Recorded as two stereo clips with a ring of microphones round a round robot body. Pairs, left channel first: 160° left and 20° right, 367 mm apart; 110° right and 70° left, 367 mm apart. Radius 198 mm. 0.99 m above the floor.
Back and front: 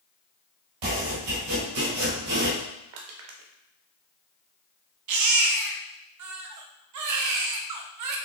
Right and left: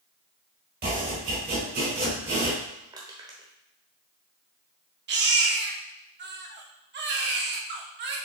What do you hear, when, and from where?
0.8 s chopping: straight ahead, 4 m
2.9 s crushing: 10° right, 1.0 m
5.1 s a baby crying: 10° left, 0.7 m